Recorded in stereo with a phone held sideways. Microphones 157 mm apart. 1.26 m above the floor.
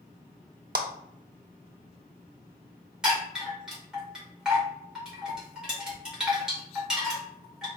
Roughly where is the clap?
Right.